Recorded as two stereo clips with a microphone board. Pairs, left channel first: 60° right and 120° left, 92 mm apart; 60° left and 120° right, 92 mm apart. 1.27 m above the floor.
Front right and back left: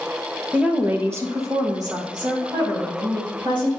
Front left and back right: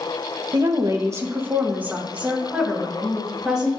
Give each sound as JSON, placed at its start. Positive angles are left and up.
{"t": 0.5, "sound": "a woman speaking", "azimuth_deg": -160, "distance_m": 0.7}